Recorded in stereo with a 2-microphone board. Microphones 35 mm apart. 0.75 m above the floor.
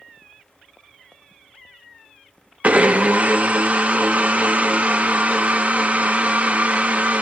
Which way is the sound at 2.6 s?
45° right (ahead or behind).